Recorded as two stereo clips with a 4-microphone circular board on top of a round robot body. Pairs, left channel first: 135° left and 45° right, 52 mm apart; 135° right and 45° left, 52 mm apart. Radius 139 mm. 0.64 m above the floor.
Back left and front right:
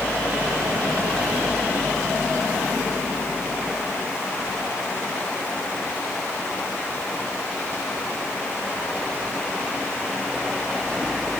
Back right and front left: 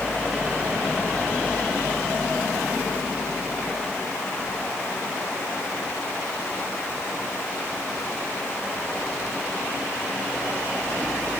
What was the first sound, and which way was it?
Only background noise.